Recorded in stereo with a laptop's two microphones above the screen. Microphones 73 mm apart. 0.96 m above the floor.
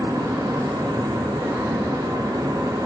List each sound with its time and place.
0.0 s a fan: 55° right (ahead or behind), 1.0 m